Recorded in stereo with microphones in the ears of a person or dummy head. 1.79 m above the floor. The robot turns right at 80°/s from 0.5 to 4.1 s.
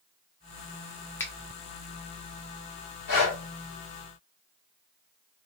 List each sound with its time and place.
1.2 s a finger snap: 15° left (ahead or behind), 0.5 m; by 1.3 s 5° left (ahead or behind), 0.5 m
3.1 s breathing: 55° left (ahead or behind), 1.8 m; by 3.4 s 70° left (ahead or behind), 1.8 m